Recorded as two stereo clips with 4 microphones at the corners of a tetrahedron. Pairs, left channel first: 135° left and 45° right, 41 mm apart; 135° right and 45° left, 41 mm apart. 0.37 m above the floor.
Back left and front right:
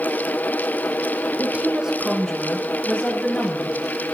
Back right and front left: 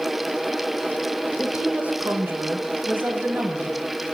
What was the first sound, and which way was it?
A woman speaking, 20° right.